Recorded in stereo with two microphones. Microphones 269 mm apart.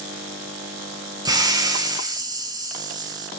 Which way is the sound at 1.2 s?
15° right (ahead or behind).